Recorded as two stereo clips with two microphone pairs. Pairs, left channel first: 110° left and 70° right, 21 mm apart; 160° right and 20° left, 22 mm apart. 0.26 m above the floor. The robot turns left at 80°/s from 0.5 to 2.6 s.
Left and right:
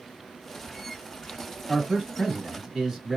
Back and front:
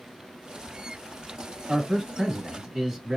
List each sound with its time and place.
1.7 s a man speaking: 80° left, 1.4 m; by 3.2 s 5° left, 1.4 m